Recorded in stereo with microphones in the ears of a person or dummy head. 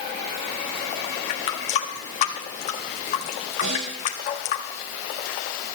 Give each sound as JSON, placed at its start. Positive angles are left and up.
{"t": 1.3, "sound": "a running tap", "side_deg": 40, "distance_m": 1.6}
{"t": 3.6, "sound": "a snare drum", "side_deg": -70, "distance_m": 6.5}